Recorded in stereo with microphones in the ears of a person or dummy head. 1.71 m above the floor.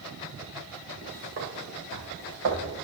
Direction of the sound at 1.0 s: 40° right (ahead or behind).